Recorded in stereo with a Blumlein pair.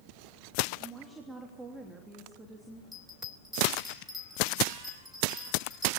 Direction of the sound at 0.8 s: 10° right.